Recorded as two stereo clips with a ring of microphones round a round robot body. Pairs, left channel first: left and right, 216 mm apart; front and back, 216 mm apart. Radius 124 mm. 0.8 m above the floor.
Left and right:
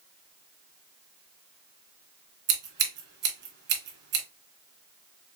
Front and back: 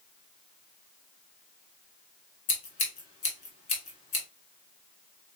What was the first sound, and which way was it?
Scissors, 60° right.